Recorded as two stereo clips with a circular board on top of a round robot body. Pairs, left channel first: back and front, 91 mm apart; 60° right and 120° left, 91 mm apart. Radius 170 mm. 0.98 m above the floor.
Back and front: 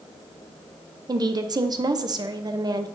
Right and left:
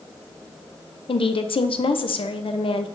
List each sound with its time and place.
1.1 s a woman speaking: 45° right, 0.8 m